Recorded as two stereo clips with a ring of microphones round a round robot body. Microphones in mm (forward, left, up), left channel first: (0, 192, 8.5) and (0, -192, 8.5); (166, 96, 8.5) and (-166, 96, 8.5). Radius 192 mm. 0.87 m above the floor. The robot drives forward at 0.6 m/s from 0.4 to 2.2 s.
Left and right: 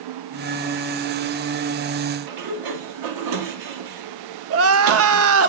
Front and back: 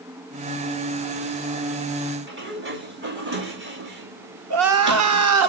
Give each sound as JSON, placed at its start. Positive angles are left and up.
{"t": 2.3, "sound": "a sliding door", "azimuth_deg": -120, "distance_m": 2.5}
{"t": 4.5, "sound": "crying", "azimuth_deg": -140, "distance_m": 1.0}